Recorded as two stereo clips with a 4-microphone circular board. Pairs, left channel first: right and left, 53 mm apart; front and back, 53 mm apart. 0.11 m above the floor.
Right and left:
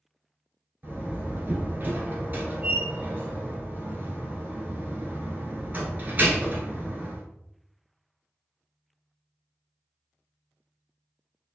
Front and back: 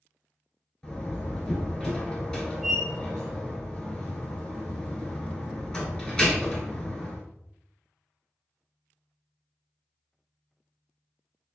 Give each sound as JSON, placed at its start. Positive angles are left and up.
{"t": 0.8, "sound": "a door slam", "azimuth_deg": 65, "distance_m": 1.5}